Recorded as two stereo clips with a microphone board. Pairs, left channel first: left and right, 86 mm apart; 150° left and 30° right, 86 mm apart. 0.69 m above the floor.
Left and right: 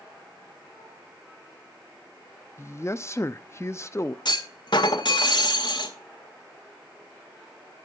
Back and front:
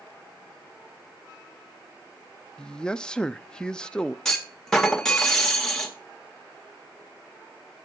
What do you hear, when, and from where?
2.6 s a man speaking: 80° left, 0.6 m
4.2 s a clunk: 65° left, 1.9 m